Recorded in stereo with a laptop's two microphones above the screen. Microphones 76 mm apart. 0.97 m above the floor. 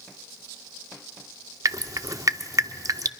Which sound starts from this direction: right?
Dripping, at 1.6 s.